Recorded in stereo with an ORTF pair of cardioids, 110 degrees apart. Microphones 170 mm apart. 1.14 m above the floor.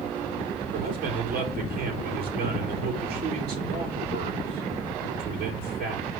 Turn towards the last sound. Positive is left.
turn(degrees=-65)